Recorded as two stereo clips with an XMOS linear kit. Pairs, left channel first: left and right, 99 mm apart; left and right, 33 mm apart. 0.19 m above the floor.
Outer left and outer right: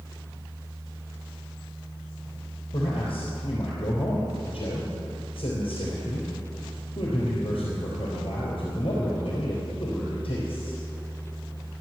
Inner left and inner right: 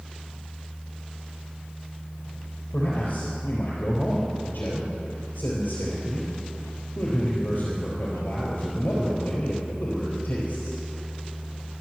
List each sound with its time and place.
2.7 s a man speaking: 65° left (ahead or behind), 4 m